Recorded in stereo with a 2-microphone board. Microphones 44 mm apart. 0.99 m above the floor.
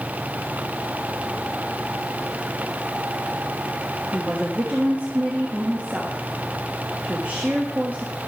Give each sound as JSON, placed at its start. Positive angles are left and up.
{"t": 4.1, "sound": "a woman speaking", "side_deg": -35, "distance_m": 1.4}